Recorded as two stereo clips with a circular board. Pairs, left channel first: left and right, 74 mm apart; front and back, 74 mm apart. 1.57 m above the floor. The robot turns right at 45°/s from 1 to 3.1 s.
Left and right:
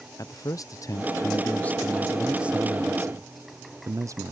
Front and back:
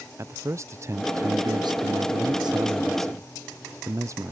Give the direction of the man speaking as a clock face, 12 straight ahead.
8 o'clock.